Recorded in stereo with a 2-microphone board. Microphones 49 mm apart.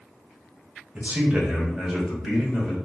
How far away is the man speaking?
About 0.8 m.